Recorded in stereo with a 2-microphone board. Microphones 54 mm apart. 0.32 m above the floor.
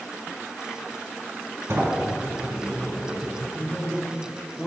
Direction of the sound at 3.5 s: 15° left (ahead or behind).